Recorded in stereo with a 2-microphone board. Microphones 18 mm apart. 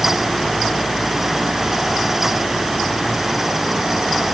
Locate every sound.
Only background noise.